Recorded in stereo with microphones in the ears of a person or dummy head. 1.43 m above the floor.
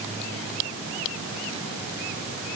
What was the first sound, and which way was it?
Only background noise.